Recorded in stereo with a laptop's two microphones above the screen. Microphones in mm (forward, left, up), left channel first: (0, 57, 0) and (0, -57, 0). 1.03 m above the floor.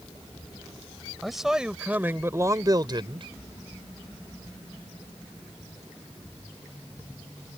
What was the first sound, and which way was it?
A man speaking, centre (ahead or behind).